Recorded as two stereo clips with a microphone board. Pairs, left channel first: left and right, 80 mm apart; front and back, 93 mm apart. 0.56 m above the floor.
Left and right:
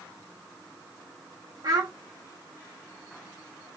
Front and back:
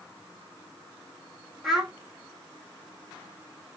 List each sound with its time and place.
1.6 s a child speaking: 90° right, 0.8 m